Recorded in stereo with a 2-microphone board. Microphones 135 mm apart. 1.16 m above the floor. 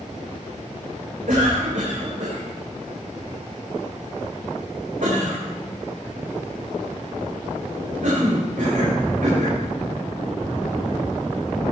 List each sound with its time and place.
1.3 s a cough: 75° right (ahead or behind), 5 m